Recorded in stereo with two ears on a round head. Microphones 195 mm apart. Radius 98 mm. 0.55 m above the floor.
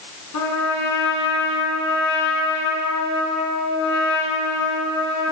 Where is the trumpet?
85° left, 2 m.